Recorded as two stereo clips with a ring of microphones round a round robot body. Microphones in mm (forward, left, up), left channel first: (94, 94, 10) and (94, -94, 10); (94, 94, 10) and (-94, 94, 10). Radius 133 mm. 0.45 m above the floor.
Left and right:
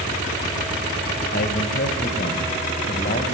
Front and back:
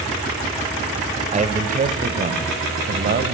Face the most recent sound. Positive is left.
turn(degrees=155)